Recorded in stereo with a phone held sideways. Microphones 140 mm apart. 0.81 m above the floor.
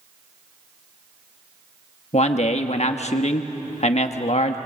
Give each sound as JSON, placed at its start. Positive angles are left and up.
{"t": 2.1, "sound": "a man speaking", "side_deg": 50, "distance_m": 1.3}